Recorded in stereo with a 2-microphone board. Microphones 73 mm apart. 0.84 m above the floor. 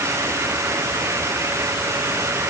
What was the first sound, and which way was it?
Only background noise.